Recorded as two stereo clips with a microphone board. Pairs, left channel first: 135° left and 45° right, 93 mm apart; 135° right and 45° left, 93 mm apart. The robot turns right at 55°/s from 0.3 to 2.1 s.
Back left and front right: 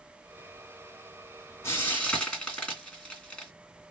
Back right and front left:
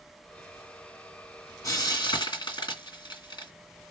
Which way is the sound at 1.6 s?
175° right.